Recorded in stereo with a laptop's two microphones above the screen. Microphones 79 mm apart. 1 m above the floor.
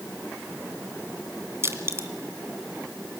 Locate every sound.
1.6 s crushing: 35° right (ahead or behind), 1.8 m